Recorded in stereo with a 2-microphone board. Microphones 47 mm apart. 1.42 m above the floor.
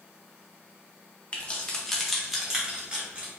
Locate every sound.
1.3 s keys jangling: 30° left (ahead or behind), 0.9 m; by 3.3 s 30° right (ahead or behind), 1.2 m